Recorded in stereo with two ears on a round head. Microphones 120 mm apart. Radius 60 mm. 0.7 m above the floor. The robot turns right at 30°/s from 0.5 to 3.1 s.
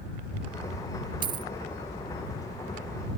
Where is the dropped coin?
35° right (ahead or behind); by 1.5 s 25° right (ahead or behind).